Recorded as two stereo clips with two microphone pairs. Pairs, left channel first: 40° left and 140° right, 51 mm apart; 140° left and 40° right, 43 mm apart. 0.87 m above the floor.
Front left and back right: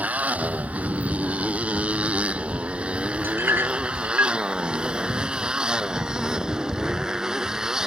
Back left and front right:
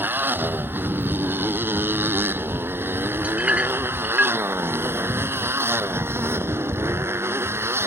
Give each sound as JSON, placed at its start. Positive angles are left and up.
{"t": 0.0, "sound": "a motorcycle", "azimuth_deg": -80}
{"t": 3.2, "sound": "a clink", "azimuth_deg": -100}